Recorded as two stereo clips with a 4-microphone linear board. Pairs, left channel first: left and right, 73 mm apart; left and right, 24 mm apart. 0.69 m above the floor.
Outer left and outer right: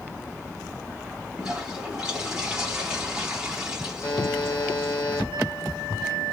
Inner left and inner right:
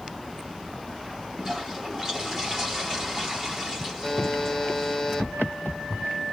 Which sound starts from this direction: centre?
A toilet flushing, at 1.4 s.